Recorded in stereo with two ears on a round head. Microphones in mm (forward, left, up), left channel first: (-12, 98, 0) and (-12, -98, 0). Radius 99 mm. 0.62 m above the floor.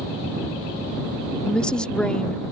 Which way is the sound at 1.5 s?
5° left (ahead or behind).